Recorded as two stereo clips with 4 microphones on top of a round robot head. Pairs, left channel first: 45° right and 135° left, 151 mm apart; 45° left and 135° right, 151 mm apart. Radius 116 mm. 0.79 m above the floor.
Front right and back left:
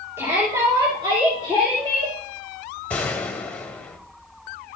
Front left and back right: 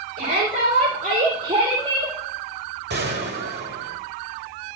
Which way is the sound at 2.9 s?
125° right.